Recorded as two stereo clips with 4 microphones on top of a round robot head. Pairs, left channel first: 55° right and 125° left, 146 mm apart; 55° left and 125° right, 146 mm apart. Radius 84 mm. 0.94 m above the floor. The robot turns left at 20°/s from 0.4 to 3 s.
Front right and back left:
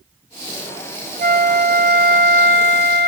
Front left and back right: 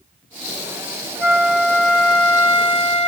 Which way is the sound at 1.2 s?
160° left.